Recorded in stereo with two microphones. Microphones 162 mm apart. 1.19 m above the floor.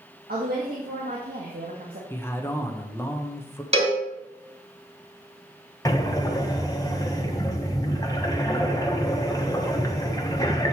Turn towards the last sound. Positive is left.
turn(degrees=25)  # may be behind; listen again after turning